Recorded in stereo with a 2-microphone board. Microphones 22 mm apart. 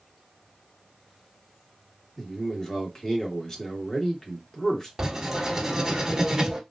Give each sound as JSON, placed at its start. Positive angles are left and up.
{"t": 2.2, "sound": "a man speaking", "side_deg": 25, "distance_m": 1.5}
{"t": 5.0, "sound": "writing", "side_deg": -30, "distance_m": 1.1}